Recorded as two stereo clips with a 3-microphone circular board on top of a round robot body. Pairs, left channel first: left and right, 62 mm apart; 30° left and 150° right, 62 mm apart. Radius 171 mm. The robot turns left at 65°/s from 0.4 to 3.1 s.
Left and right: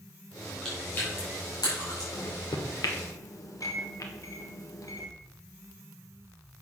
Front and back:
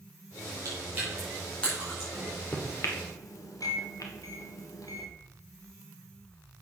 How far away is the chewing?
About 5 m.